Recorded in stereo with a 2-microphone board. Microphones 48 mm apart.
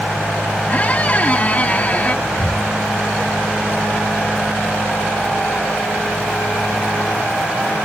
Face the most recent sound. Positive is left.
turn(degrees=50)  # may be behind; listen again after turning